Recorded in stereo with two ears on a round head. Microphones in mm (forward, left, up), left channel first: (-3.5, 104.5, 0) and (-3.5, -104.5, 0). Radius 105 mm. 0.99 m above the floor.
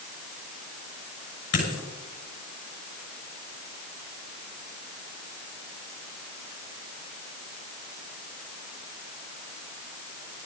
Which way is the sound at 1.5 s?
70° left (ahead or behind).